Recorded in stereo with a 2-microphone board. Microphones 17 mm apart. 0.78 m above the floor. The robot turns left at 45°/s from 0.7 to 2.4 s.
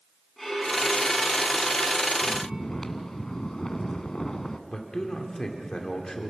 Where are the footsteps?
I don't hear footsteps.